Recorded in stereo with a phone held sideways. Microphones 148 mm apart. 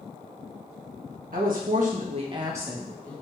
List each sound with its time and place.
1.3 s a woman speaking: 75° right (ahead or behind), 1.5 m; by 3.1 s 15° left (ahead or behind), 1.1 m